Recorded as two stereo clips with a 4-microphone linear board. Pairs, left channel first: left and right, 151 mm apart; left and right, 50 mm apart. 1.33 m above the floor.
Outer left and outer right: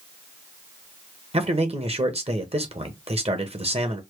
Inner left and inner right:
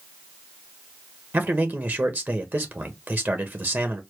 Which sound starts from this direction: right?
A man speaking, at 1.3 s.